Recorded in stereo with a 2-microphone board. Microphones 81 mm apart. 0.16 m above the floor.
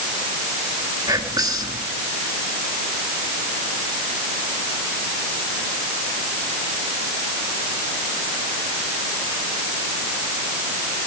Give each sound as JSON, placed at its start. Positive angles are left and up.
{"t": 1.1, "sound": "whispering", "side_deg": -50, "distance_m": 1.9}